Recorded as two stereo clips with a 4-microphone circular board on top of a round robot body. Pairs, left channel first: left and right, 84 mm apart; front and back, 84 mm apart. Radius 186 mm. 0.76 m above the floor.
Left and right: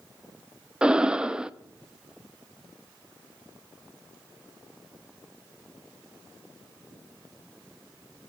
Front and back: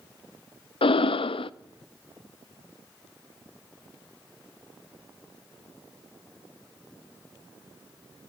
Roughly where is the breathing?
Ahead.